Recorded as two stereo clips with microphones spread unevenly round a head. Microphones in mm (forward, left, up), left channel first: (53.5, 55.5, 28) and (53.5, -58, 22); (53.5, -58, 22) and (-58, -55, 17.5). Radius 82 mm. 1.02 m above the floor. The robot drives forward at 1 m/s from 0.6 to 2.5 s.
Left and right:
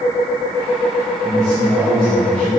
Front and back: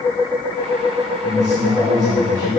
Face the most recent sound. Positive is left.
turn(degrees=180)